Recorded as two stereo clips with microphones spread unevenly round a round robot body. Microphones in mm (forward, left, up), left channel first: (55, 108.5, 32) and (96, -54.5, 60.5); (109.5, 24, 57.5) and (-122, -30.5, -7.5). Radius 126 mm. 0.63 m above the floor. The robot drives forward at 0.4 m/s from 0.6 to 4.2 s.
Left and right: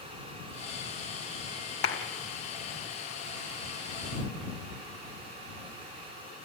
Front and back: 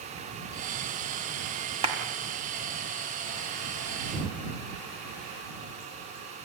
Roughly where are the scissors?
I don't hear scissors.